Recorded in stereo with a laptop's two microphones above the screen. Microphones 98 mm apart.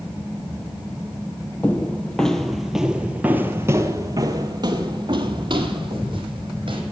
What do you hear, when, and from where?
1.6 s footsteps: 15° left (ahead or behind), 1.4 m; by 6.8 s 55° right (ahead or behind), 2 m